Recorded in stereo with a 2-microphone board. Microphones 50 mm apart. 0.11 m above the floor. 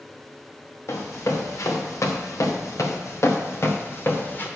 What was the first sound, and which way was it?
Running footsteps, 70° left (ahead or behind).